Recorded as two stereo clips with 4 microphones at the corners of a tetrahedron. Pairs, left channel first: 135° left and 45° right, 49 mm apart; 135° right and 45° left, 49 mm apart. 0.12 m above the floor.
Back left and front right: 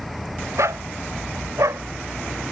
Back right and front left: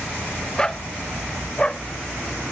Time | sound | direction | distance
0.6 | a dog barking | 60° right | ?